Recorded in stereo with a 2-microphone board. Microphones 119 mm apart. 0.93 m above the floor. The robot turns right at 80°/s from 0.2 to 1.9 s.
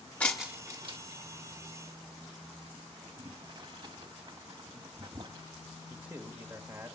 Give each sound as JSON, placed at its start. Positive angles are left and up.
{"t": 0.2, "sound": "breaking glass", "side_deg": 10, "distance_m": 1.1}
{"t": 3.0, "sound": "boiling", "side_deg": -40, "distance_m": 1.2}
{"t": 5.9, "sound": "a man speaking", "side_deg": -15, "distance_m": 1.5}